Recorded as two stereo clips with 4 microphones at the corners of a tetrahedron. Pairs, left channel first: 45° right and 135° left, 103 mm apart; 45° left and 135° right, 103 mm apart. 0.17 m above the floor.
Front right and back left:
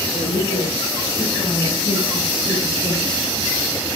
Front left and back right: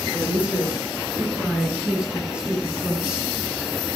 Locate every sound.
0.1 s a woman speaking: 55° right, 4.5 m